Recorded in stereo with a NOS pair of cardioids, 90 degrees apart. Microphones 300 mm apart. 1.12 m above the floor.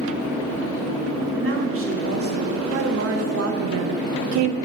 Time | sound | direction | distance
1.4 | a woman speaking | 45° right | 3 m